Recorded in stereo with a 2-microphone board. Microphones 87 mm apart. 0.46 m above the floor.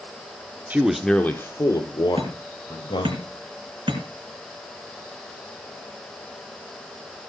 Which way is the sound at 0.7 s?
20° right (ahead or behind).